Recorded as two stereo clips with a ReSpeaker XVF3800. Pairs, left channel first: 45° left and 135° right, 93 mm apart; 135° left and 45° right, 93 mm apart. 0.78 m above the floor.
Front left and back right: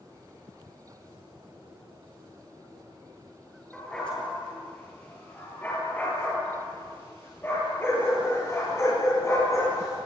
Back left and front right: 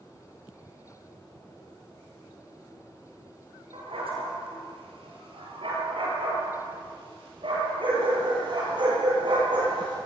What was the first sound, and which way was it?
A dog barking, 35° right.